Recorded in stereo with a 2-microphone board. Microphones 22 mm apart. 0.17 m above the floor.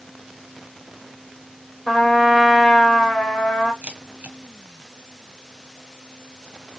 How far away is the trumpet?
About 4 m.